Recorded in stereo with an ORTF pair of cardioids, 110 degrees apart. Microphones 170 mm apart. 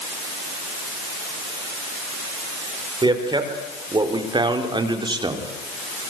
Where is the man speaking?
25° right, 5.5 m.